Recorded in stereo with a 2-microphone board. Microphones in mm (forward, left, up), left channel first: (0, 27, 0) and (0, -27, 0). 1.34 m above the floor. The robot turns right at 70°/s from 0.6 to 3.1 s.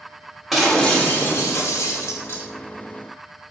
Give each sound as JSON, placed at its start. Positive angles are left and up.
{"t": 0.5, "sound": "breaking glass", "azimuth_deg": -5, "distance_m": 1.7}